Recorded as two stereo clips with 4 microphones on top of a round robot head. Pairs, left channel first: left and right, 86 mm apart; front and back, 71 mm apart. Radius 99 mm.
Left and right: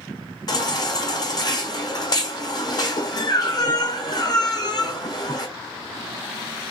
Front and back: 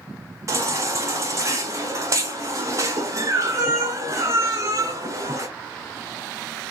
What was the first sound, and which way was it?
A baby crying, 135° left.